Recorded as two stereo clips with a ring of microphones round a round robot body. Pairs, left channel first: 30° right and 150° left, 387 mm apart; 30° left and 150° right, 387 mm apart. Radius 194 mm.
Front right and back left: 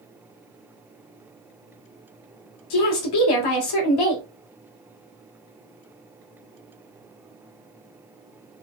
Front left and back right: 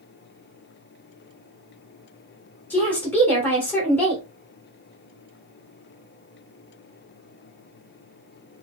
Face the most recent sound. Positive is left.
turn(degrees=-55)